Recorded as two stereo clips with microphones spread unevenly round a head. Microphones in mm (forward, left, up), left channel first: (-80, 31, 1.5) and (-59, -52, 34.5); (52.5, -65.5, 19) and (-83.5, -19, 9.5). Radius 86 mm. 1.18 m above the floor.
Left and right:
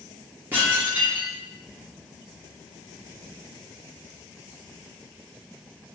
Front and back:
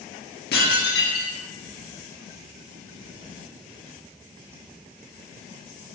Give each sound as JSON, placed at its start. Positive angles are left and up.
{"t": 0.5, "sound": "dishes clattering", "azimuth_deg": 0, "distance_m": 1.5}